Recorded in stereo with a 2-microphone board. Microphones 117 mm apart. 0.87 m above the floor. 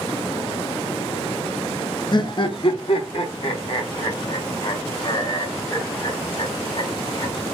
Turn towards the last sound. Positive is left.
turn(degrees=55)  # may be behind; listen again after turning